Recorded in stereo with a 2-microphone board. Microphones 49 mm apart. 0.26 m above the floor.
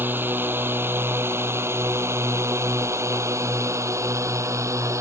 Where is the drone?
45° right (ahead or behind); by 5.0 s 80° right.